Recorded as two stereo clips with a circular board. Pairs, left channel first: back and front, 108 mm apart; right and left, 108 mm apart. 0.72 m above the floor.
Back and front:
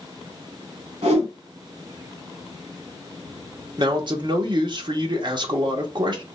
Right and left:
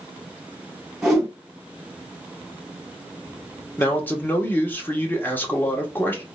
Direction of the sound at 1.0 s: Straight ahead.